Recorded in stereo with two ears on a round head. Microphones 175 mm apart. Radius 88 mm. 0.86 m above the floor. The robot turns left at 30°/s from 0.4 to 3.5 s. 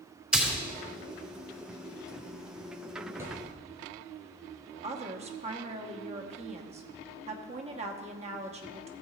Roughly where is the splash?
Centre.